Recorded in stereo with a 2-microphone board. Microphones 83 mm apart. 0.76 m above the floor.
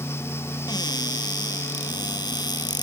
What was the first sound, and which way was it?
A cupboard door, 55° left (ahead or behind).